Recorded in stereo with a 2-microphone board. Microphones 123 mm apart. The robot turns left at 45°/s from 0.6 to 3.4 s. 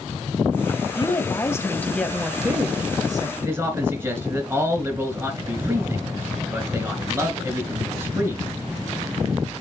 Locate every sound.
0.9 s a woman speaking: 55° left, 1.7 m; by 3.3 s 50° right, 1.7 m
3.4 s a man speaking: 15° right (ahead or behind), 3.5 m